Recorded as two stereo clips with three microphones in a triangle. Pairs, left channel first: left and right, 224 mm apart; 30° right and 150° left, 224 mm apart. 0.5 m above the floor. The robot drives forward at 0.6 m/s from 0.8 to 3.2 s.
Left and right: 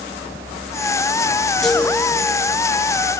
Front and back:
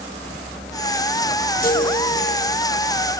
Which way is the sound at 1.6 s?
Straight ahead.